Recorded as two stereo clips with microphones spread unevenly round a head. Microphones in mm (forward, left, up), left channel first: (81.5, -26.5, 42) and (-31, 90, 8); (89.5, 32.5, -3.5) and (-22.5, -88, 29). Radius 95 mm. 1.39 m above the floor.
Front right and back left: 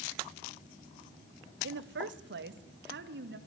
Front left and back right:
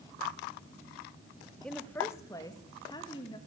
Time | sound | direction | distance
1.6 | a woman speaking | 130° left | 1.2 m